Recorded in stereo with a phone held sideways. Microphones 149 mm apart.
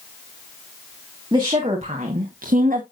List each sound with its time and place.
1.3 s a woman speaking: 30° right (ahead or behind), 2.0 m; by 2.8 s 70° right (ahead or behind), 1.4 m